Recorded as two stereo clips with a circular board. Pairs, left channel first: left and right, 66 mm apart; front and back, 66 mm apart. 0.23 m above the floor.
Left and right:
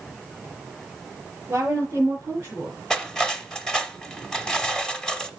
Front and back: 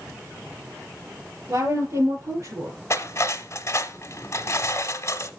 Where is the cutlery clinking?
10° left, 1.0 m.